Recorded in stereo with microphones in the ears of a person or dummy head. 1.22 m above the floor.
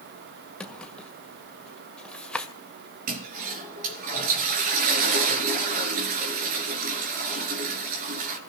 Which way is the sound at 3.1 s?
50° right (ahead or behind).